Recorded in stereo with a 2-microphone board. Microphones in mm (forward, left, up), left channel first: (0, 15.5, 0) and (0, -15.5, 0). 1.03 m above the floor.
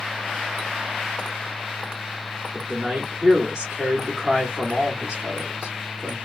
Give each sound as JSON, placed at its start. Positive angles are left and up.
{"t": 2.5, "sound": "a man speaking", "side_deg": -15, "distance_m": 2.5}